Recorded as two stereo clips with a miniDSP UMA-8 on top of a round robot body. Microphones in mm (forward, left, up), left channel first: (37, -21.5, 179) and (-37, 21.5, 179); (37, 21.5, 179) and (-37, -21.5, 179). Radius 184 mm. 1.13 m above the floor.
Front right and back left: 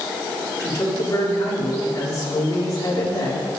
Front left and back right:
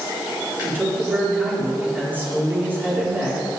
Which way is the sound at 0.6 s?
80° right.